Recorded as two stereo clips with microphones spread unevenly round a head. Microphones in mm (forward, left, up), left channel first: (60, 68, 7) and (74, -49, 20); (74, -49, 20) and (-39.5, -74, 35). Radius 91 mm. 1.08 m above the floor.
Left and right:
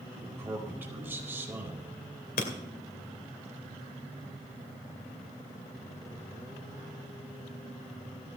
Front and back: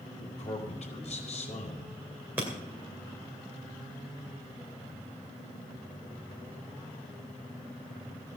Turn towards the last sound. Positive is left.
turn(degrees=115)